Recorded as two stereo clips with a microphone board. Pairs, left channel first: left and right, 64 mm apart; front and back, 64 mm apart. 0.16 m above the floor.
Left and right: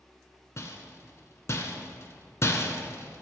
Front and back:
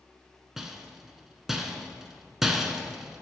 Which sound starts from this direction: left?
A rattle, at 0.6 s.